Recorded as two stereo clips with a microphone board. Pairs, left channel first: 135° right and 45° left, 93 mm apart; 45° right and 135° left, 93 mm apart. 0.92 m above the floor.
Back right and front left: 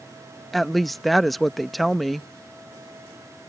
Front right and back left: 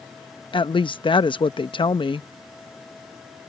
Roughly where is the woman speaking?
Ahead right.